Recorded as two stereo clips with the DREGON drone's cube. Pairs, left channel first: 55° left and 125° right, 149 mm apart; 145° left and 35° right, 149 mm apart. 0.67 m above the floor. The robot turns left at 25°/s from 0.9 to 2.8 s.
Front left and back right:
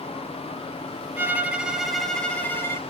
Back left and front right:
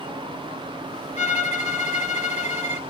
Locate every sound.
1.2 s a violin: 165° left, 0.7 m; by 2.8 s 125° left, 0.7 m